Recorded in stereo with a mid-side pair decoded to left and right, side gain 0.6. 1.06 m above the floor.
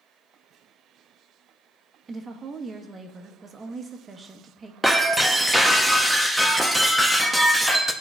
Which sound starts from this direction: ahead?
Breaking glass, at 4.8 s.